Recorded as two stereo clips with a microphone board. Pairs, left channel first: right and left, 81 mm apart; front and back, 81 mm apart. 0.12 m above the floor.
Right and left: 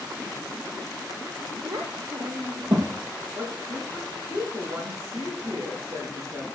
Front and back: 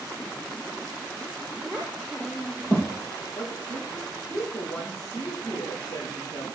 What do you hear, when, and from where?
1.6 s a child speaking: 90° left, 2.5 m; by 3.0 s 65° left, 2.5 m
3.4 s a woman speaking: 40° left, 7.5 m